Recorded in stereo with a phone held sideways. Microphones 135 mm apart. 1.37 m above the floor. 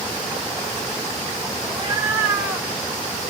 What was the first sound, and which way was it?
A cat meowing, 35° right (ahead or behind).